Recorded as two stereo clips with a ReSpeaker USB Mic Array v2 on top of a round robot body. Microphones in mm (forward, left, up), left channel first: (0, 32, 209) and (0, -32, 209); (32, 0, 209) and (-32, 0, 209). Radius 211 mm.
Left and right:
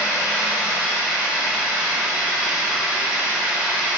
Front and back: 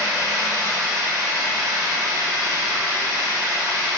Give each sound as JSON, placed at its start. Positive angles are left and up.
{"t": 0.0, "sound": "running water", "azimuth_deg": -165, "distance_m": 0.8}